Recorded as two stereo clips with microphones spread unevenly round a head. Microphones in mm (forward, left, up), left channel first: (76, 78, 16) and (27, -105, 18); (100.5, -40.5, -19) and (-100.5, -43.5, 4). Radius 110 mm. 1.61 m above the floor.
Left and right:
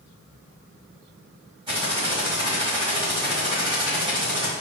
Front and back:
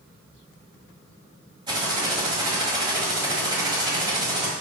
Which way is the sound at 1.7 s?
145° right.